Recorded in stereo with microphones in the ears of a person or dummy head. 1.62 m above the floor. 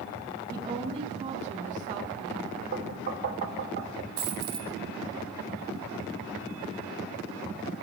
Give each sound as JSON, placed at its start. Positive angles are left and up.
{"t": 0.5, "sound": "a woman speaking", "side_deg": -20, "distance_m": 2.5}
{"t": 2.7, "sound": "knocking", "side_deg": -60, "distance_m": 4.5}
{"t": 4.2, "sound": "a dropped coin", "side_deg": -30, "distance_m": 2.0}